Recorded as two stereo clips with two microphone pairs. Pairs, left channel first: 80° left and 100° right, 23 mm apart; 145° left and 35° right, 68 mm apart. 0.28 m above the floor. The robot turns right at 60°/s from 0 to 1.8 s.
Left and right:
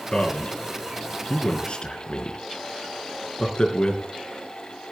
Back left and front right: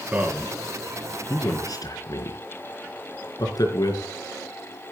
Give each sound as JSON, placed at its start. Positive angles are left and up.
{"t": 0.1, "sound": "a man speaking", "azimuth_deg": 25, "distance_m": 3.5}